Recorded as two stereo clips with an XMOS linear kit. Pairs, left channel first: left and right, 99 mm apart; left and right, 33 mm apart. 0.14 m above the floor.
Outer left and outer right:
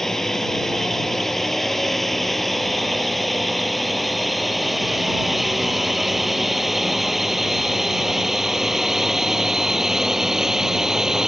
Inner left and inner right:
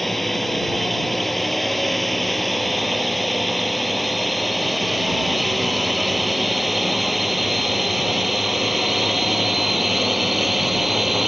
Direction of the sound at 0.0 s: 5° left (ahead or behind).